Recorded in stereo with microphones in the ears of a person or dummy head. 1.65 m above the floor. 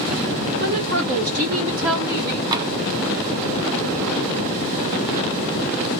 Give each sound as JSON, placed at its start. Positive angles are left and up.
{"t": 0.6, "sound": "a woman speaking", "side_deg": -60, "distance_m": 1.9}
{"t": 2.5, "sound": "tapping", "side_deg": -20, "distance_m": 0.5}